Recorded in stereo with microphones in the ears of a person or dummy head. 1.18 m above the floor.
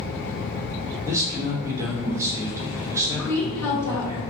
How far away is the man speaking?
About 1.2 m.